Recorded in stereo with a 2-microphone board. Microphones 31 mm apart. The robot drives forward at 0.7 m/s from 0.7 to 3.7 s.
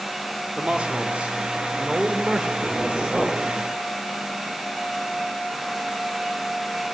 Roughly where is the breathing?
No breathing in this recording.